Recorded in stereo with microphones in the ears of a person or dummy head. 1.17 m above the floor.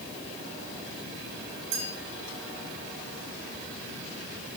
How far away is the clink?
About 6 m.